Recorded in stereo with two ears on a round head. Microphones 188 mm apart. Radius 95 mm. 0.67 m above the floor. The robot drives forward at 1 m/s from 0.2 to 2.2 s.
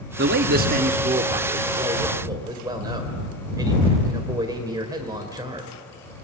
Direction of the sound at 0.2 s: 55° right (ahead or behind).